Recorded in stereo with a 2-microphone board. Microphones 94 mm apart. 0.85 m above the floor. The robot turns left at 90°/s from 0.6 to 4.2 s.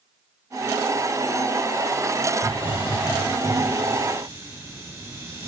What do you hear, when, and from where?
2.4 s a hiss: 130° left, 6.5 m; by 5.5 s 30° right, 6.5 m